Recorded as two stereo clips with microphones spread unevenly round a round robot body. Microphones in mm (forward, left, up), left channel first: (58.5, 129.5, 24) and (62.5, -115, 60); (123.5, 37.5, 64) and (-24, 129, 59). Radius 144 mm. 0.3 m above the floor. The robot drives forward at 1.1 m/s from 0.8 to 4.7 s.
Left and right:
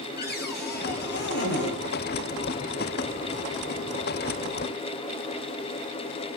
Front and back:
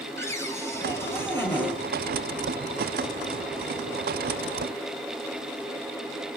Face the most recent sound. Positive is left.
turn(degrees=75)